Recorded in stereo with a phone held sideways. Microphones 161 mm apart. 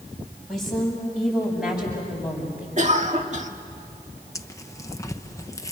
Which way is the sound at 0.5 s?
Centre (ahead or behind).